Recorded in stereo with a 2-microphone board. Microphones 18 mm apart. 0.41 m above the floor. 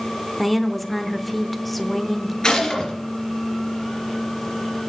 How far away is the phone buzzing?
No phone buzzing in this recording.